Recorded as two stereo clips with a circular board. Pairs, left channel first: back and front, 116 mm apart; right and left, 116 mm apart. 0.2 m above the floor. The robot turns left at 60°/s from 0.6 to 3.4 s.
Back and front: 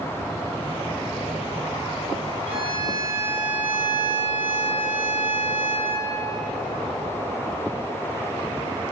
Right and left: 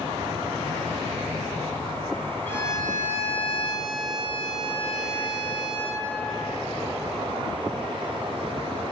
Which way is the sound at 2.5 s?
15° right.